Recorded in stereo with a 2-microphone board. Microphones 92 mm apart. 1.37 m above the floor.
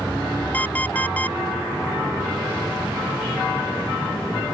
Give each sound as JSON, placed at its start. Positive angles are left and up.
{"t": 0.5, "sound": "an alarm clock", "side_deg": 15}